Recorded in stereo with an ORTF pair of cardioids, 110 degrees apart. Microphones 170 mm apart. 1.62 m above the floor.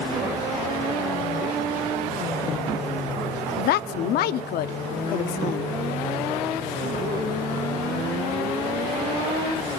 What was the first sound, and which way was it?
A woman speaking, 65° left.